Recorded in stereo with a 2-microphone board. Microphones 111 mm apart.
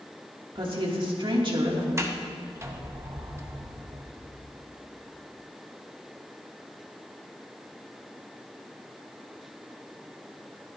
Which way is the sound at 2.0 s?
25° right (ahead or behind).